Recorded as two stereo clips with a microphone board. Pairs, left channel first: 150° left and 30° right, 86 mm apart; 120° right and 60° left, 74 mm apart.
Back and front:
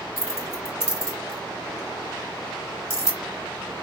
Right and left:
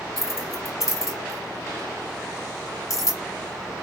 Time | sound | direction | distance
0.2 | keys jangling | 155° right | 1.5 m